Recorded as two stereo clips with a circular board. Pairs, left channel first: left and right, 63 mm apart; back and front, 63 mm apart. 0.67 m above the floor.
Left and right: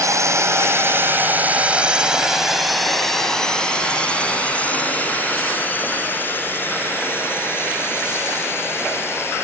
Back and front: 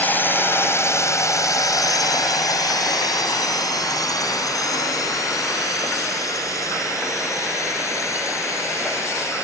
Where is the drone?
120° right; by 9.4 s 140° left.